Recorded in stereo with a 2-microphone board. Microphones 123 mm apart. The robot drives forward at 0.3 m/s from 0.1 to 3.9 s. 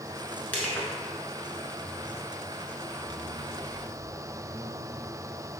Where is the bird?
I don't hear a bird.